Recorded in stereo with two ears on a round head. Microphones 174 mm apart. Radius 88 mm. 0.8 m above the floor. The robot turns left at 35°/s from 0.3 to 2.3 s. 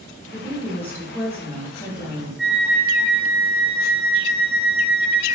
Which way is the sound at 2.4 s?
Centre (ahead or behind).